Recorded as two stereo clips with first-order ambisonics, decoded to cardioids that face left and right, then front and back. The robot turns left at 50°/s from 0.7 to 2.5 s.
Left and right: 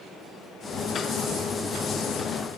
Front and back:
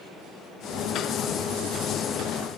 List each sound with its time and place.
Only background noise.